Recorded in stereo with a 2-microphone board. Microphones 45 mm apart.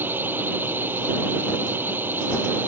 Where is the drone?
50° right (ahead or behind).